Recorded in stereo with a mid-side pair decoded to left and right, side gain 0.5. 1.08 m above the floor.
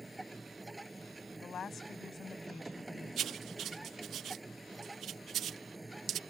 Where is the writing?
60° right.